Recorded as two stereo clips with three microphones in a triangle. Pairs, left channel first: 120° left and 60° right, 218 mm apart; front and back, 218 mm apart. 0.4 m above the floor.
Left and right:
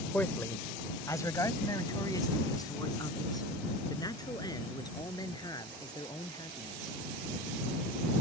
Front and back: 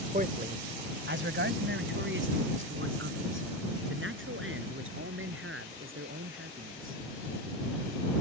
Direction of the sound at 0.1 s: 160° right.